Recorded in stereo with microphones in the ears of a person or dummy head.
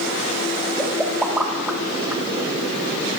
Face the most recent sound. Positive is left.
turn(degrees=-10)  # may be behind; listen again after turning